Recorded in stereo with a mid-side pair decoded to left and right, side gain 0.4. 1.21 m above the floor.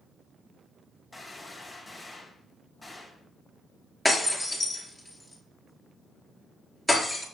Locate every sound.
1.1 s a gunshot: 15° left, 4 m
4.0 s breaking glass: straight ahead, 4 m